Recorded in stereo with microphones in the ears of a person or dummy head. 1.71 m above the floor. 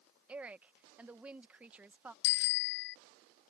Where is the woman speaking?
10° right (ahead or behind).